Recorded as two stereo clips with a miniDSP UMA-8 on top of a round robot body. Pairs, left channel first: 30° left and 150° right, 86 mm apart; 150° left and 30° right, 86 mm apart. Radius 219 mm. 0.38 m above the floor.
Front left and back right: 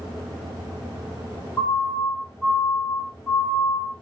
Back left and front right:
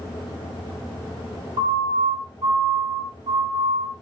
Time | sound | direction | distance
1.6 | a siren | 35° right | 9 m